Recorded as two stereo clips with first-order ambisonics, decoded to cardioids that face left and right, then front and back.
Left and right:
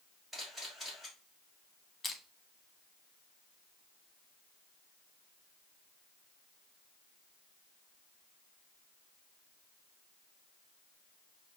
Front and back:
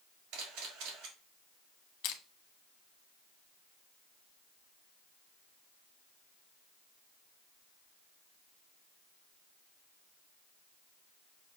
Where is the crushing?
15° left, 0.9 m.